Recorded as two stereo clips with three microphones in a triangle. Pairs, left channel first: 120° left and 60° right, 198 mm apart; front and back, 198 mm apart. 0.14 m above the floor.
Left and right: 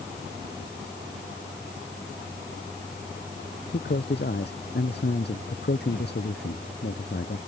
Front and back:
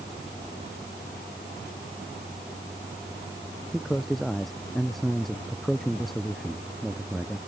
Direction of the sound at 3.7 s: 90° left.